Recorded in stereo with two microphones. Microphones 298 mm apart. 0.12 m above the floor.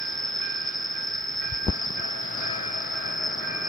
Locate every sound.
0.0 s an insect: 25° left (ahead or behind)